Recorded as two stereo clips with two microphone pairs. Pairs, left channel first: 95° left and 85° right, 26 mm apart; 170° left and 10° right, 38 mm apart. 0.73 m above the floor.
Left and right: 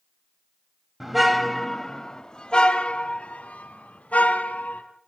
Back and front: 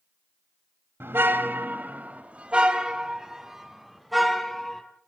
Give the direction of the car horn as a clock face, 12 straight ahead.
12 o'clock.